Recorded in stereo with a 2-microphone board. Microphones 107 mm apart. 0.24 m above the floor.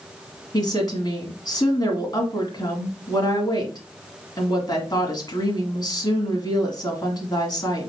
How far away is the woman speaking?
About 1.8 m.